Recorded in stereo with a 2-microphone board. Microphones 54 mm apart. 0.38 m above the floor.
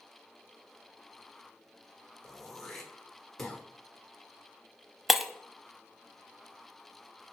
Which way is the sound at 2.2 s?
5° left (ahead or behind).